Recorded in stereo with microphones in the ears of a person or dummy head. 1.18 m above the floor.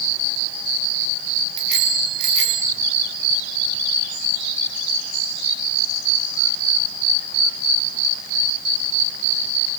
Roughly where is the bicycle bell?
Right.